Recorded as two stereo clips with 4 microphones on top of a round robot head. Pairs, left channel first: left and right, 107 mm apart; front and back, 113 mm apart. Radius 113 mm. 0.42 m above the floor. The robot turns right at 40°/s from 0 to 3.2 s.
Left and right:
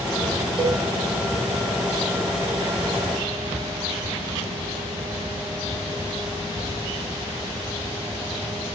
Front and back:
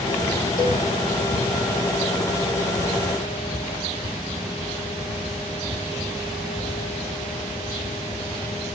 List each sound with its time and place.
0.6 s a cowbell: 55° right, 2 m; by 0.8 s 45° right, 2 m